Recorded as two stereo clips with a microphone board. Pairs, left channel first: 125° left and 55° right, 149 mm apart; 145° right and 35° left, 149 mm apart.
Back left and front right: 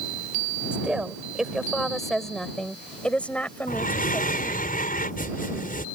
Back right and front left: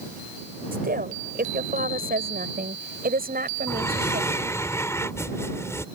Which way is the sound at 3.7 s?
140° left.